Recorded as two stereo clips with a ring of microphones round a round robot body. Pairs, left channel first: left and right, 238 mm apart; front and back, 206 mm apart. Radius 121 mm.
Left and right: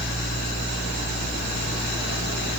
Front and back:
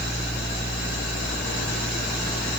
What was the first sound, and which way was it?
Only background noise.